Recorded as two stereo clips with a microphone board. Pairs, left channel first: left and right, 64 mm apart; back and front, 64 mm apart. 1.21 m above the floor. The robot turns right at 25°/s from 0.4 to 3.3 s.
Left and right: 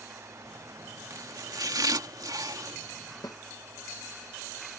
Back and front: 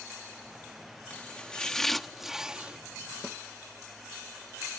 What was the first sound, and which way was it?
Chopping, 115° right.